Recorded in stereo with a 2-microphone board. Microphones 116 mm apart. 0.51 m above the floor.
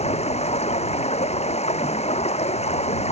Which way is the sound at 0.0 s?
85° left.